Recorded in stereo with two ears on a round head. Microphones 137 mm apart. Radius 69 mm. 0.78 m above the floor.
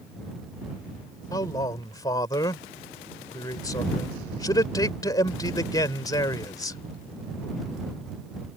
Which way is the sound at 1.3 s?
25° left (ahead or behind).